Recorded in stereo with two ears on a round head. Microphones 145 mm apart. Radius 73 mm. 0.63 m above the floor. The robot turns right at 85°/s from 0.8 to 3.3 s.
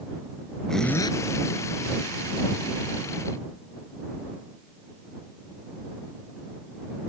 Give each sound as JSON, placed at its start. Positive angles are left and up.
{"t": 0.7, "sound": "a zipper", "azimuth_deg": 5}